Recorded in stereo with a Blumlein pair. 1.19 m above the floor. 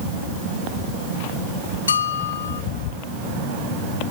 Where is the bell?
70° left, 1.0 m.